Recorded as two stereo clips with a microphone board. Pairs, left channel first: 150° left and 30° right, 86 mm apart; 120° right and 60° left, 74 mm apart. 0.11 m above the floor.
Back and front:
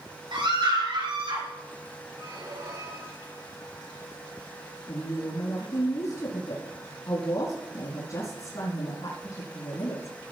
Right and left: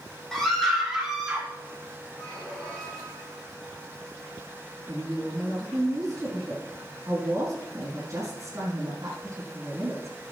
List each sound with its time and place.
0.3 s a scream: 35° right, 5 m; by 1.5 s 20° right, 5 m
2.2 s a squeak: 50° right, 5 m
4.9 s a woman speaking: 105° left, 4 m